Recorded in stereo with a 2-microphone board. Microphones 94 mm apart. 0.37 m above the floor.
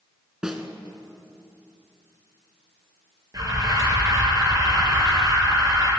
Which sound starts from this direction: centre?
A snare drum, at 0.4 s.